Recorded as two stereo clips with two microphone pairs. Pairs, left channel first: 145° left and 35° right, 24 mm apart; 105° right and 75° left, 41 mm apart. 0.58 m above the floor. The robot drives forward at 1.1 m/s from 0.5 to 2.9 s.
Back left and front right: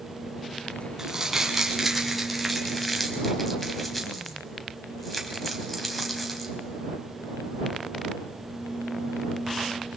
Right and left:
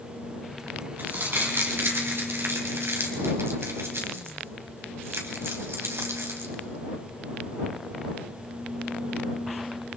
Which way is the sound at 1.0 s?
35° left.